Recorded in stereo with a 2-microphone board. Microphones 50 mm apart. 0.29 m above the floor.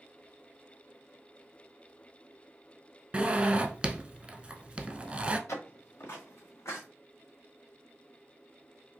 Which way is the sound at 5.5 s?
75° left (ahead or behind).